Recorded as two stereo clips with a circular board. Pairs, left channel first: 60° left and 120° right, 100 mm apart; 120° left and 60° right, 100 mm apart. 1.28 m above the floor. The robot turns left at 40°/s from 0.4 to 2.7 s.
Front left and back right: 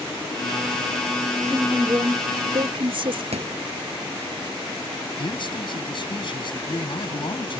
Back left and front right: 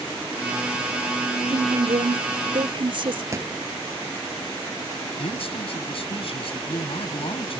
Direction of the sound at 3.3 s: 120° right.